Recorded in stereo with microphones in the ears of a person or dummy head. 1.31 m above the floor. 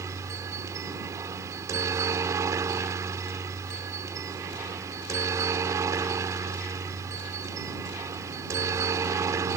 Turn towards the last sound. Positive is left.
turn(degrees=-20)  # may be behind; listen again after turning